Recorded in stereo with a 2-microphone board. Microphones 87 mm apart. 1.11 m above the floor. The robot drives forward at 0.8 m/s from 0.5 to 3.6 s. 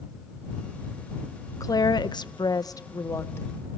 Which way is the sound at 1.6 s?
45° left (ahead or behind).